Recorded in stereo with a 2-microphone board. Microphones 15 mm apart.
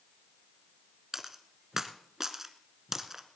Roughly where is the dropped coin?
Right.